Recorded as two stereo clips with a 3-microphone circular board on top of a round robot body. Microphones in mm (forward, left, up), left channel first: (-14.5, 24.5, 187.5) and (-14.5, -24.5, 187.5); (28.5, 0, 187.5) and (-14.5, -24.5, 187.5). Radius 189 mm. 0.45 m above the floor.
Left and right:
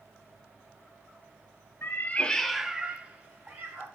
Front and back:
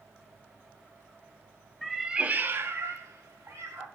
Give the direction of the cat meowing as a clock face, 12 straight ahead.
8 o'clock.